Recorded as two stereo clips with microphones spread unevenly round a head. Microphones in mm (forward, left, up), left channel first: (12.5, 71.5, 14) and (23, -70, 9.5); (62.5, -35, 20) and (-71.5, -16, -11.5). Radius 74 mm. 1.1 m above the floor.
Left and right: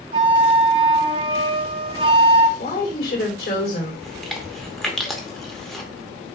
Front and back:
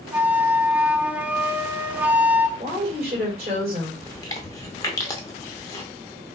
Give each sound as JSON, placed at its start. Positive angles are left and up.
{"t": 0.1, "sound": "a flute", "azimuth_deg": -95, "distance_m": 0.5}
{"t": 2.6, "sound": "a woman speaking", "azimuth_deg": 125, "distance_m": 3.5}
{"t": 4.0, "sound": "chewing", "azimuth_deg": 10, "distance_m": 0.8}